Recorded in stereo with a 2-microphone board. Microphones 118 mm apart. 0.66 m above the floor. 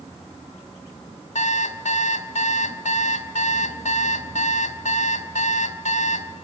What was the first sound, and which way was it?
An alarm clock, 80° left.